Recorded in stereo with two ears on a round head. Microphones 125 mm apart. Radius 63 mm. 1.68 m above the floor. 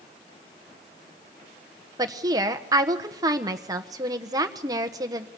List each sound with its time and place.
2.0 s a woman speaking: 25° right (ahead or behind), 1.3 m